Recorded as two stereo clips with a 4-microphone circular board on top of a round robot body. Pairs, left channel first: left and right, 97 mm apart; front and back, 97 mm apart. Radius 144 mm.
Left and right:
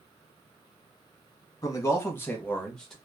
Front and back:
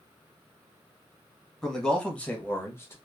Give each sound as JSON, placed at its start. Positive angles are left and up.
{"t": 1.6, "sound": "a man speaking", "azimuth_deg": 80, "distance_m": 1.1}